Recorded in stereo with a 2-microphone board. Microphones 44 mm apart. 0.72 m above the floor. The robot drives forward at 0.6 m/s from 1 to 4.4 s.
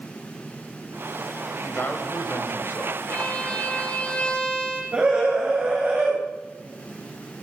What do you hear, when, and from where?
1.6 s a man speaking: 50° left (ahead or behind), 4 m; by 3.0 s 60° left (ahead or behind), 3.5 m
3.1 s a violin: 30° left (ahead or behind), 3 m; by 4.8 s 25° left (ahead or behind), 4 m
4.9 s a scream: 25° right (ahead or behind), 4.5 m